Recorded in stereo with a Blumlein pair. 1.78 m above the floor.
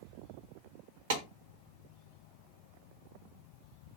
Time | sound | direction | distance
1.1 | a clap | 55° right | 1.4 m